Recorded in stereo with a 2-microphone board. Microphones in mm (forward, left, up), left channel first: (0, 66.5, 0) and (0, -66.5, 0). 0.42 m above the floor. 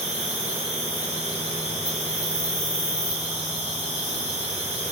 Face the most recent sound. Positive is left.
turn(degrees=-55)  # may be behind; listen again after turning